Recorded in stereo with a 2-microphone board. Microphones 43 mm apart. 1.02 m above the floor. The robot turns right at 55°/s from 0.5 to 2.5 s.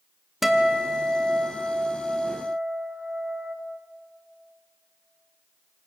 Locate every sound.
0.4 s a guitar: 170° right, 1.2 m; by 3.5 s 60° right, 1.2 m